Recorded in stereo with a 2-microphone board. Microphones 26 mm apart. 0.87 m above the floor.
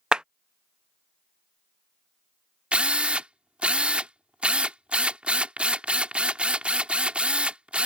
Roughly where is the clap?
Right.